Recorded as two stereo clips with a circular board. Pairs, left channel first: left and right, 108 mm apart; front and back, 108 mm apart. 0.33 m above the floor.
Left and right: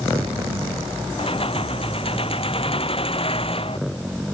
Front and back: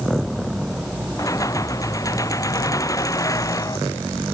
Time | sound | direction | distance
1.2 | keys jangling | 60° left | ?